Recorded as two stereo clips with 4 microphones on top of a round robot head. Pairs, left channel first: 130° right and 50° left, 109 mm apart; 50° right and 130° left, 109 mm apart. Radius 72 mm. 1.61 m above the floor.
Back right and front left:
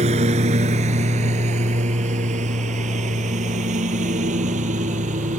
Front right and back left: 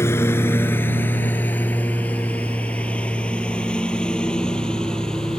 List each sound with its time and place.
0.0 s a lawn mower: 20° left; by 5.4 s 35° left